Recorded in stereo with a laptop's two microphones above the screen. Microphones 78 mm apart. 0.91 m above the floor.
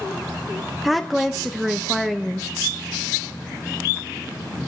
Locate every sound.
0.8 s a woman speaking: centre (ahead or behind), 0.7 m